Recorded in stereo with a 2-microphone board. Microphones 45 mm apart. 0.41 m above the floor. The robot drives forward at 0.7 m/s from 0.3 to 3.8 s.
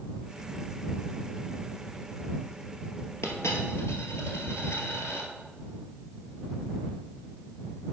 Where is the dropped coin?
75° left (ahead or behind), 1.4 m; by 5.3 s 80° left, 1.4 m.